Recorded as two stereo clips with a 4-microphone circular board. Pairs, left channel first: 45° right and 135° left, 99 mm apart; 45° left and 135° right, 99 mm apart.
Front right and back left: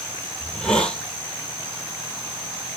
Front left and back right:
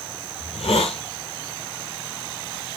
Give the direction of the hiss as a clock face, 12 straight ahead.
11 o'clock.